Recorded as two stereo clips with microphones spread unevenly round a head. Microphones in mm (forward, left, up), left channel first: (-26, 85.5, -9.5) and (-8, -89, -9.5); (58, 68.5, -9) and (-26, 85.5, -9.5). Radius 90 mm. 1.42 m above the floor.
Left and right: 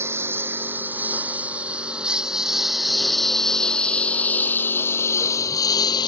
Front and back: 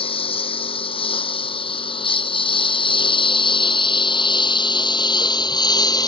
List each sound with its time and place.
0.0 s a lawn mower: 5° right; by 6.1 s 30° left